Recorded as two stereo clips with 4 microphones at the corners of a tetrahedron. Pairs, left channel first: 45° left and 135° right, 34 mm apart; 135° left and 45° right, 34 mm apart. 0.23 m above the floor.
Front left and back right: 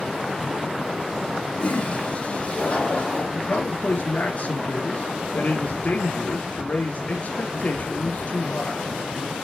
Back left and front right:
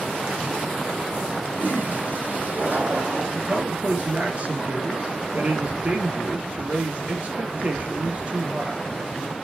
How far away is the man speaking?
About 4 m.